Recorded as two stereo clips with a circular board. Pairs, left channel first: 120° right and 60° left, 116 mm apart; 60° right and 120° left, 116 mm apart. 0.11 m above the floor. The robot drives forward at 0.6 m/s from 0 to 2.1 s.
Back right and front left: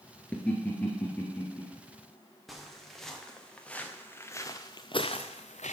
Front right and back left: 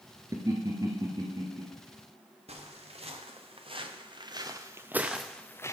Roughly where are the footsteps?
Behind left.